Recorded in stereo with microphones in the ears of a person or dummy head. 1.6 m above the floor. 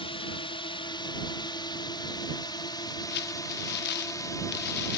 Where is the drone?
25° left (ahead or behind); by 5.0 s 15° left (ahead or behind).